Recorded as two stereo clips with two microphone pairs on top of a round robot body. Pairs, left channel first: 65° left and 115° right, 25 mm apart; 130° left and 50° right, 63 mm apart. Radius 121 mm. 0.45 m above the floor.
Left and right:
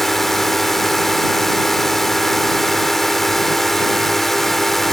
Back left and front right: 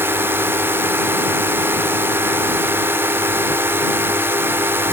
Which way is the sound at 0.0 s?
15° right.